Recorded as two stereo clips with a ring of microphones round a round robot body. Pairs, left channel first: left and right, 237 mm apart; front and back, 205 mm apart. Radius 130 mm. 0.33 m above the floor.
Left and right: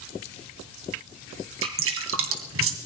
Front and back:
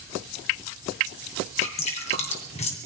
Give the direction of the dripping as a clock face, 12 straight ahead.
2 o'clock.